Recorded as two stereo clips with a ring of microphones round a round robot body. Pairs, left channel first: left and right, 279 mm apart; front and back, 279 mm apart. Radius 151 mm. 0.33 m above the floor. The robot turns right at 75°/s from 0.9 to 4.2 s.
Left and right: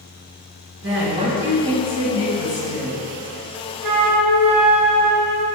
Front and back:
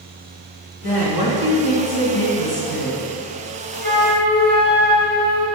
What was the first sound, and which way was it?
A woman speaking, 50° right.